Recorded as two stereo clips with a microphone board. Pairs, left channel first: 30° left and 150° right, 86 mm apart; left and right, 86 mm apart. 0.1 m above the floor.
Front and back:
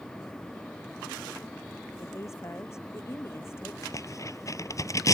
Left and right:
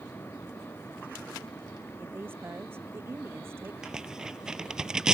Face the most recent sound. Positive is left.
turn(degrees=-10)